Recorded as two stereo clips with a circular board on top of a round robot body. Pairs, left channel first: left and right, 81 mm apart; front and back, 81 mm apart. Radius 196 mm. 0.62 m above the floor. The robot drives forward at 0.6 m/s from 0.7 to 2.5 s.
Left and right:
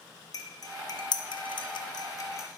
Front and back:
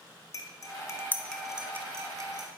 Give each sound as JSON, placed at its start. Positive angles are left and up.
{"t": 0.3, "sound": "cutlery clinking", "azimuth_deg": 45, "distance_m": 0.7}